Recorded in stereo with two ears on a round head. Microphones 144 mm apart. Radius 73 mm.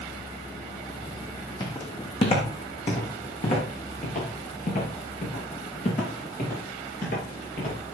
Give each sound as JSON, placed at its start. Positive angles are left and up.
{"t": 1.6, "sound": "footsteps", "side_deg": 25, "distance_m": 3.5}